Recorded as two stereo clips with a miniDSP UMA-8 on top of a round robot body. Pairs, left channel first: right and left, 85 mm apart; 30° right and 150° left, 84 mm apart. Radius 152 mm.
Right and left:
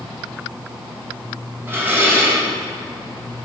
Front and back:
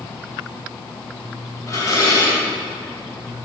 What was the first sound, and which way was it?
Dishes clattering, 25° left.